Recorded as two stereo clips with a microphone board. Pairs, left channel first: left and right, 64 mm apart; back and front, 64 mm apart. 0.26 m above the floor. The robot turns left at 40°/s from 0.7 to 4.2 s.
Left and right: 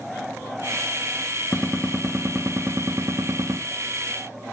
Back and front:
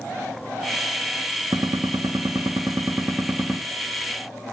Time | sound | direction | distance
1.5 | a gunshot | 5° left | 2.5 m